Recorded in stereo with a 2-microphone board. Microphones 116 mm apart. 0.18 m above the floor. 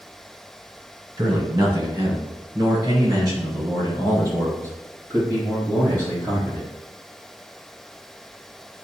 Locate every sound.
1.2 s a man speaking: 30° right (ahead or behind), 1.4 m; by 6.7 s 25° right (ahead or behind), 5.5 m